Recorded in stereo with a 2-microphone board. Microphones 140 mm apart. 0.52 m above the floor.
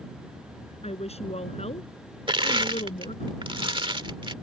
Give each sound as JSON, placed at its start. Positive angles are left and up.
{"t": 0.8, "sound": "a woman speaking", "side_deg": 55}
{"t": 2.3, "sound": "crushing", "side_deg": -40}